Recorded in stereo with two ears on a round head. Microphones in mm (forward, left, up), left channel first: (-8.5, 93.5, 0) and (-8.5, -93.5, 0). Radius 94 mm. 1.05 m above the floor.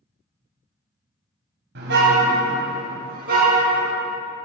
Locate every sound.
1.8 s a car horn: 55° right (ahead or behind), 3 m; by 4.0 s 45° right (ahead or behind), 5.5 m